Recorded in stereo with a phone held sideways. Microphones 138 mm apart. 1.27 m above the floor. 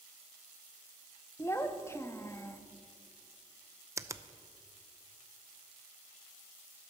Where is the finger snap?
20° right (ahead or behind), 0.5 m.